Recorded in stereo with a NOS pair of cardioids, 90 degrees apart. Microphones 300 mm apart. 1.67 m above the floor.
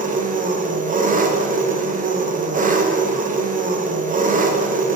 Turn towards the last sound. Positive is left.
turn(degrees=-25)